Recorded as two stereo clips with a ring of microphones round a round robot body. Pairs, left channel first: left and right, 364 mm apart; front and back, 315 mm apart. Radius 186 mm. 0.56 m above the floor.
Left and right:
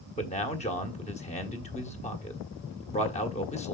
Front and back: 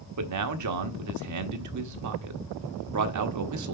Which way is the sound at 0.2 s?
160° left.